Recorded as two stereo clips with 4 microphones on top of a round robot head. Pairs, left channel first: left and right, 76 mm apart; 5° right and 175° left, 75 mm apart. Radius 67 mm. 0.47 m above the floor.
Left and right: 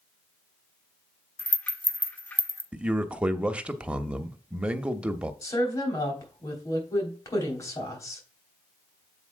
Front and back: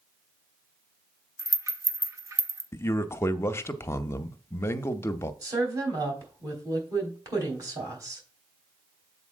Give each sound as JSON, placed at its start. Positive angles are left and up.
{"t": 1.4, "sound": "a rattle", "azimuth_deg": 150, "distance_m": 1.0}
{"t": 2.7, "sound": "a man speaking", "azimuth_deg": -25, "distance_m": 0.8}
{"t": 5.4, "sound": "a woman speaking", "azimuth_deg": 135, "distance_m": 3.5}